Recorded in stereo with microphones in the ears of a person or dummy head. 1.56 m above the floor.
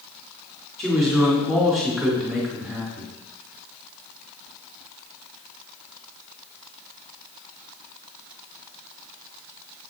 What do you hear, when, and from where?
0.8 s a man speaking: centre (ahead or behind), 2.5 m